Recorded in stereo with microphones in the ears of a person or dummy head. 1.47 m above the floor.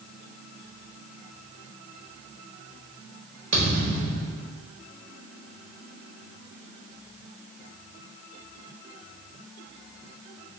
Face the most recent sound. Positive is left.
turn(degrees=-45)  # may be behind; listen again after turning